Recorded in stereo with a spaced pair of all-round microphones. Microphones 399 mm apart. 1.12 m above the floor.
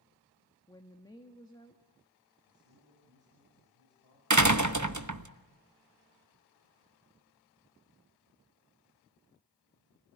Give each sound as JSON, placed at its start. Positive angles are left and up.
{"t": 0.7, "sound": "a woman speaking", "side_deg": 10, "distance_m": 1.7}
{"t": 2.5, "sound": "a man speaking", "side_deg": 80, "distance_m": 7.0}
{"t": 4.3, "sound": "a door slam", "side_deg": -45, "distance_m": 1.0}